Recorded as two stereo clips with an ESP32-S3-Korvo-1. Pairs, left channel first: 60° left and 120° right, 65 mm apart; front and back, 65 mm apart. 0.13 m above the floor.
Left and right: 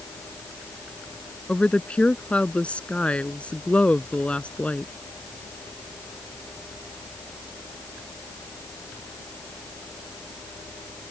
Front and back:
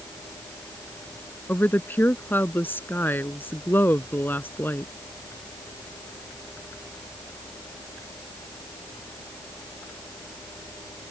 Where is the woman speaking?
5° left.